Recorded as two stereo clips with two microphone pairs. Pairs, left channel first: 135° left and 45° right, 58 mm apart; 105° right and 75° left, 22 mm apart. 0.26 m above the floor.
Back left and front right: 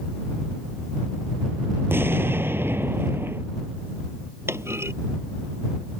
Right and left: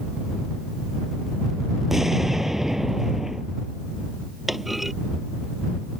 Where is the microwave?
I don't hear a microwave.